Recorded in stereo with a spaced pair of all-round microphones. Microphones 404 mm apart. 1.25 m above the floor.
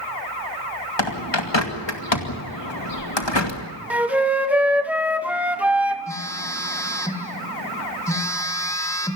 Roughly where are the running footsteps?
I don't hear running footsteps.